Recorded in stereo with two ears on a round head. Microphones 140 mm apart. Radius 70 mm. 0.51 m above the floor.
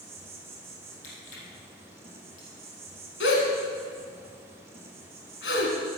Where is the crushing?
50° left (ahead or behind), 4.5 m.